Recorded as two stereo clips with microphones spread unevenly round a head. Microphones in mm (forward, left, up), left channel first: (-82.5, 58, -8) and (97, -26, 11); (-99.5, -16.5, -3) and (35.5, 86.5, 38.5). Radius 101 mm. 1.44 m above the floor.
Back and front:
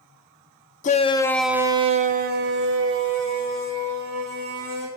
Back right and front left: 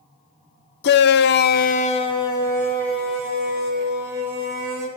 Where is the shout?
150° right, 0.7 m; by 4.9 s 45° right, 2.5 m.